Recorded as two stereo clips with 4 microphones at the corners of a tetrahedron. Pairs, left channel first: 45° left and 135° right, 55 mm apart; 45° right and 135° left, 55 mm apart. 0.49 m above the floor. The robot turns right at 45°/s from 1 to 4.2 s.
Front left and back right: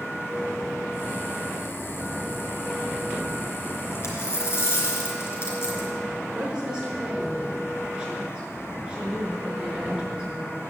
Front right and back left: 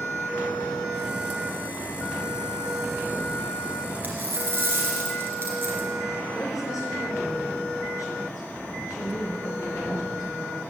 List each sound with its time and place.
4.0 s a dropped coin: 75° left, 3.5 m; by 5.9 s 85° left, 3.5 m
6.3 s a woman speaking: 65° right, 6 m